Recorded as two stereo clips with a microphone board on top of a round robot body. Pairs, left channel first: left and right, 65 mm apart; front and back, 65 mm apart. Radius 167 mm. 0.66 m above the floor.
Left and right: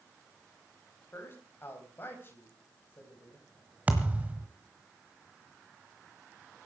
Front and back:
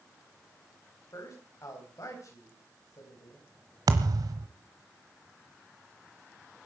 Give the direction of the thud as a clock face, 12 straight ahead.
5 o'clock.